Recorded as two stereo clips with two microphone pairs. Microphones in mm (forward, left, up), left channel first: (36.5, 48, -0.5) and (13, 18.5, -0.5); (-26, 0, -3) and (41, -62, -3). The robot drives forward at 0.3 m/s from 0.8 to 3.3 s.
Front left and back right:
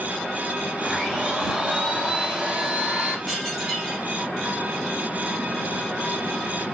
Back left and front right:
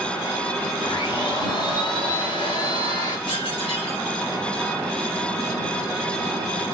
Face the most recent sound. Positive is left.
turn(degrees=150)